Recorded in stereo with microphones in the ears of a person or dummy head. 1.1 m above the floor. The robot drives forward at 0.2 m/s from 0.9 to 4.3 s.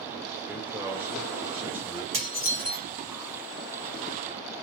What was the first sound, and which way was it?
A man speaking, 10° right (ahead or behind).